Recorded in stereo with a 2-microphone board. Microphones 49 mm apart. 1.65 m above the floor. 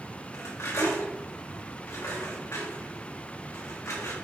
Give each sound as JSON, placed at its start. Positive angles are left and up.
{"t": 0.3, "sound": "cutlery clinking", "side_deg": 75, "distance_m": 3.5}